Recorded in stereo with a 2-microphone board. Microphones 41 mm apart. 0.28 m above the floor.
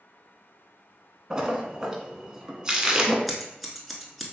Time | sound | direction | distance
1.3 | a splash | 20° right (ahead or behind) | 0.6 m
3.3 | scissors | centre (ahead or behind) | 0.6 m